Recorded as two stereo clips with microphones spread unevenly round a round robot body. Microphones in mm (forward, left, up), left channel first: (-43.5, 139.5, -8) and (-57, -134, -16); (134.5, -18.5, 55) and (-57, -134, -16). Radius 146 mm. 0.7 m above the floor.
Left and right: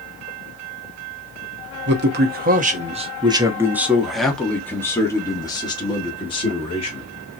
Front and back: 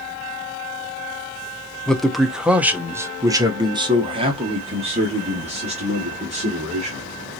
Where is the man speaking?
75° right, 1.1 m; by 7.0 s 155° left, 2.5 m.